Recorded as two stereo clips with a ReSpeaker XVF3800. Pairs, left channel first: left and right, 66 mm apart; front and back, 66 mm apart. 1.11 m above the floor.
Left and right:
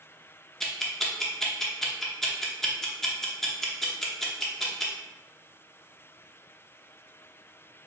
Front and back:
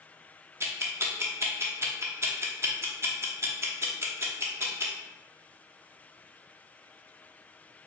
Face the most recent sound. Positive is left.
turn(degrees=170)